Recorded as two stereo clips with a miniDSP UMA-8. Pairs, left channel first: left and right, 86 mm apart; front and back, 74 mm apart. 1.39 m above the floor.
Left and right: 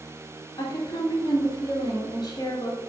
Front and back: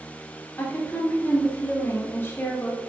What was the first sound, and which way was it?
A woman speaking, 60° left.